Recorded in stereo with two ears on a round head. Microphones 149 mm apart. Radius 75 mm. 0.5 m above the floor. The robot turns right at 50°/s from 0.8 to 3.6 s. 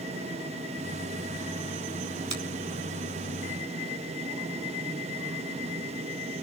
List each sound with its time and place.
2.3 s a finger snap: 40° right (ahead or behind), 4.5 m; by 2.4 s 35° right (ahead or behind), 4.5 m